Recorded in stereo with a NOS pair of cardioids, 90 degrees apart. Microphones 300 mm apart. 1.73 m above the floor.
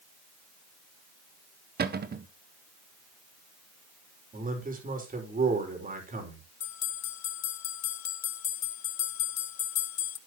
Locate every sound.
1.8 s a cupboard door: 30° right, 1.3 m
4.3 s a man speaking: 30° right, 5 m
6.6 s a bell: 65° left, 1.0 m